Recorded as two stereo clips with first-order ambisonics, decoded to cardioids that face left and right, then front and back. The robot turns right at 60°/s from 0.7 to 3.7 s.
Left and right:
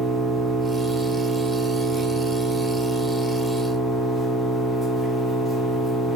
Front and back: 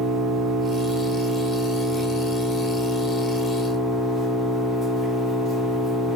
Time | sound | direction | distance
0.0 | an engine running | 165° right | 0.9 m